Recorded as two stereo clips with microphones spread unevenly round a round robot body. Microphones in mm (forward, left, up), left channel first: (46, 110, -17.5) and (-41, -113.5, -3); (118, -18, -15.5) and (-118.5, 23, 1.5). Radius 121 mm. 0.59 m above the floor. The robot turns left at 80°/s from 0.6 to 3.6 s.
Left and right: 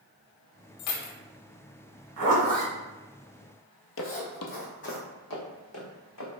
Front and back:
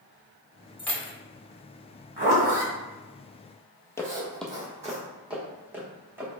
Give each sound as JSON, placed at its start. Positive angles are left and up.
{"t": 0.8, "sound": "keys jangling", "azimuth_deg": 80, "distance_m": 0.9}
{"t": 2.2, "sound": "a zipper", "azimuth_deg": -140, "distance_m": 1.9}
{"t": 4.0, "sound": "footsteps", "azimuth_deg": 70, "distance_m": 0.8}